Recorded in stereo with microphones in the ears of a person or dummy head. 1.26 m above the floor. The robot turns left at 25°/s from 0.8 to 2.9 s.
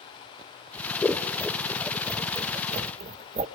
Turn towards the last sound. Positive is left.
turn(degrees=-35)  # may be behind; listen again after turning